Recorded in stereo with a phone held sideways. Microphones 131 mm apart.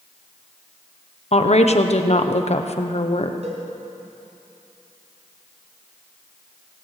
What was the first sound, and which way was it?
A woman speaking, 55° left (ahead or behind).